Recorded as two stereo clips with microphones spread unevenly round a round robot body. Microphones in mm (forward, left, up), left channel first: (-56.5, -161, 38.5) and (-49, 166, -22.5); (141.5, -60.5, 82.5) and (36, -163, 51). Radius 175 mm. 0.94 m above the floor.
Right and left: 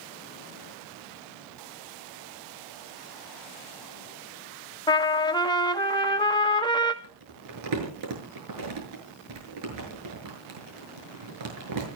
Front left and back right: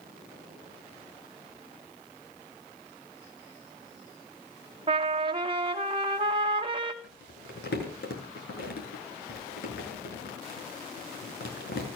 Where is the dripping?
No dripping in this recording.